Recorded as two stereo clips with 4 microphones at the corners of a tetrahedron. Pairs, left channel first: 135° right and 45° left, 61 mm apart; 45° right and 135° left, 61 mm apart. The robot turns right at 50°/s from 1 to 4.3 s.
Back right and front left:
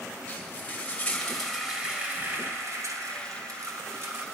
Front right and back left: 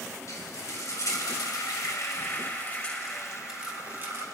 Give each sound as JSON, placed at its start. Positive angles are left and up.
{"t": 0.3, "sound": "frying", "azimuth_deg": -65, "distance_m": 2.5}